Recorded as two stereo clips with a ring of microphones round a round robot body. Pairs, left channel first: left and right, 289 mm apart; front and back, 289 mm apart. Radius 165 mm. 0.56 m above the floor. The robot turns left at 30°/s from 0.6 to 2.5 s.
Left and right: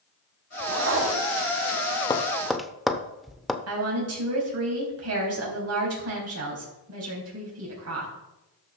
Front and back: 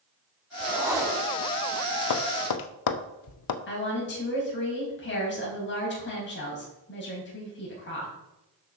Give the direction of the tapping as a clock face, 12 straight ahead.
12 o'clock.